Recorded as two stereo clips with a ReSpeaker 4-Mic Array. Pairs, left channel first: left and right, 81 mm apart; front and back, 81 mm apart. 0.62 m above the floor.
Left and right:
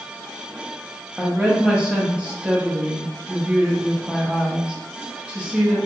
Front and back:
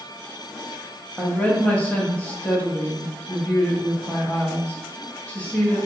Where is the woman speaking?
35° right, 0.6 m.